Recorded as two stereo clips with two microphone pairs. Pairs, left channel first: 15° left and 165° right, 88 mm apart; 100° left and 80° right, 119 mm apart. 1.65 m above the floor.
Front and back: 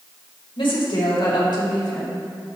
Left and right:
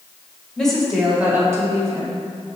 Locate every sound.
0.6 s a woman speaking: 15° left, 1.8 m; by 2.3 s 40° right, 1.9 m